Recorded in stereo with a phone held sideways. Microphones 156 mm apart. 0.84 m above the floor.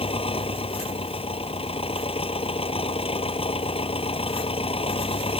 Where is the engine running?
35° left (ahead or behind).